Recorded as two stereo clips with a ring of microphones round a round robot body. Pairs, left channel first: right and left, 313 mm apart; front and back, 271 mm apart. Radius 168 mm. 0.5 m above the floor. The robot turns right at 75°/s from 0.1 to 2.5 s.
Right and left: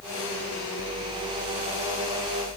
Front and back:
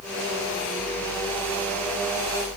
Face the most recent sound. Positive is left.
No sound to turn to.